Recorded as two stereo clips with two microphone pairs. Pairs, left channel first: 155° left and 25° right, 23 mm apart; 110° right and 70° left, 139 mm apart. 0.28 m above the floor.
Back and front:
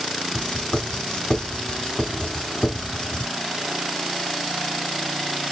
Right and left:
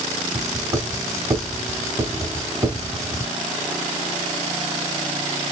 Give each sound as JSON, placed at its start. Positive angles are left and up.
{"t": 0.3, "sound": "writing", "azimuth_deg": 135, "distance_m": 3.0}